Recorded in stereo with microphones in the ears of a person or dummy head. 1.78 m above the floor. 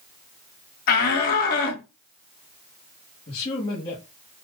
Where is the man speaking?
35° left (ahead or behind), 1.6 m.